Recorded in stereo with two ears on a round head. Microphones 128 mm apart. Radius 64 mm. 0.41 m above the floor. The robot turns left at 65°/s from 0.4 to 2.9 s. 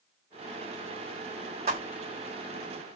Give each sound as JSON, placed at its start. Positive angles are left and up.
{"t": 1.7, "sound": "footsteps", "side_deg": -45, "distance_m": 1.0}